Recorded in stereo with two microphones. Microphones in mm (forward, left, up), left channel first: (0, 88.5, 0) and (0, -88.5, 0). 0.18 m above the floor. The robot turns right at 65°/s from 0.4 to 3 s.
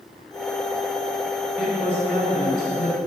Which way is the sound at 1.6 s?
5° right.